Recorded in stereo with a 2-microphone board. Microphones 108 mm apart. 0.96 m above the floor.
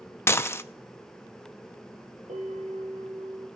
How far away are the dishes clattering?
About 0.6 m.